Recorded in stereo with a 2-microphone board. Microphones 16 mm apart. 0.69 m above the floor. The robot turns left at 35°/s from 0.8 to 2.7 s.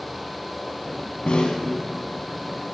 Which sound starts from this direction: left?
A snare drum, at 1.3 s.